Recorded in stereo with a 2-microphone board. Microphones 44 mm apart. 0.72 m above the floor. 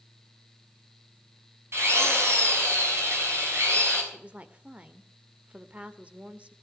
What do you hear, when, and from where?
1.7 s a drill: 65° right (ahead or behind), 6.5 m
4.1 s a woman speaking: 30° right (ahead or behind), 1.9 m